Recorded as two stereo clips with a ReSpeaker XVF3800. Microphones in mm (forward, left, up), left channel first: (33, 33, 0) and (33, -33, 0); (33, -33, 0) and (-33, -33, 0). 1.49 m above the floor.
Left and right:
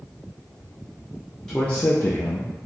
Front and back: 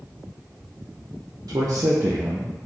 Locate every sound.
1.5 s a man speaking: 170° left, 0.6 m; by 2.7 s 95° left, 0.6 m